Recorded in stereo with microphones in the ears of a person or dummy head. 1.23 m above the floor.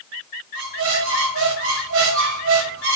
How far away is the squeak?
About 0.9 m.